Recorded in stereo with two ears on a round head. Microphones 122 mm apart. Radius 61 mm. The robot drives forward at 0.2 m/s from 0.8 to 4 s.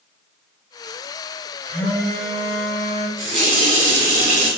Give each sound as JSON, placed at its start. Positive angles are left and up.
{"t": 1.6, "sound": "a phone buzzing", "side_deg": 15, "distance_m": 1.2}
{"t": 3.2, "sound": "a running tap", "side_deg": -60, "distance_m": 1.3}